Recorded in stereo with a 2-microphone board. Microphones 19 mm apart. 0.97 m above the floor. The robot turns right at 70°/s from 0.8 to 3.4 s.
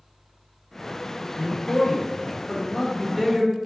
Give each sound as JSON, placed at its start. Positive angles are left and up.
{"t": 1.4, "sound": "a man speaking", "azimuth_deg": 55, "distance_m": 1.6}